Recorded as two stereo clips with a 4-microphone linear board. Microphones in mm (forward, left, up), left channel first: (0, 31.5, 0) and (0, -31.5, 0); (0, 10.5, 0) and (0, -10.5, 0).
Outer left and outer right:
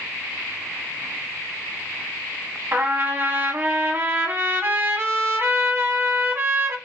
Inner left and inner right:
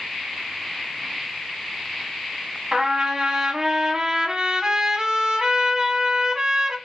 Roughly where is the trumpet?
Right.